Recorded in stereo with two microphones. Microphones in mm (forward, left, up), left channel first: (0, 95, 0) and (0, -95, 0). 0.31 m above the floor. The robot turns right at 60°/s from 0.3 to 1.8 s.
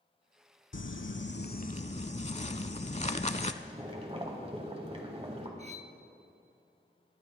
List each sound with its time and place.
0.7 s crumpling: 80° left, 0.5 m; by 3.5 s 145° left, 0.5 m
3.6 s boiling: 30° right (ahead or behind), 1.7 m
5.6 s cutlery clinking: 35° right (ahead or behind), 0.7 m